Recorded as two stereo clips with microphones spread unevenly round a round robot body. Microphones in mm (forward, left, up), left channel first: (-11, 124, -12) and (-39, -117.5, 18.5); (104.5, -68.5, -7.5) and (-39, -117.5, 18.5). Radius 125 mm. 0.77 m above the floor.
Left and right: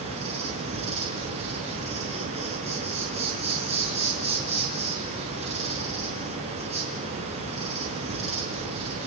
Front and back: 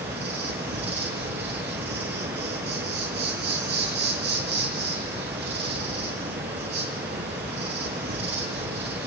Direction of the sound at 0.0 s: 160° right.